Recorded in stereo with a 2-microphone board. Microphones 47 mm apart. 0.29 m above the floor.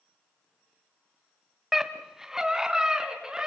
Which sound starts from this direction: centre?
A scream, at 1.7 s.